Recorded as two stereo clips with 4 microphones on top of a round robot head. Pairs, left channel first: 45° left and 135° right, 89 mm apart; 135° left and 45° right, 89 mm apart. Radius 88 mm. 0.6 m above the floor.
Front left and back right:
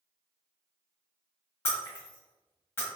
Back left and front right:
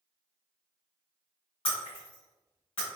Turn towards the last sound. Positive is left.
turn(degrees=105)